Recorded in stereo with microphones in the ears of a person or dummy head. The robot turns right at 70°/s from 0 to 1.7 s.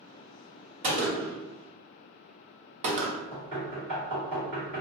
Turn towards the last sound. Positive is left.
turn(degrees=-40)  # may be behind; listen again after turning